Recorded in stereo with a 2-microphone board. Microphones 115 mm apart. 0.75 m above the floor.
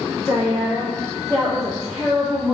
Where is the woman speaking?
30° left (ahead or behind), 1.2 m; by 2.5 s 15° right (ahead or behind), 1.5 m.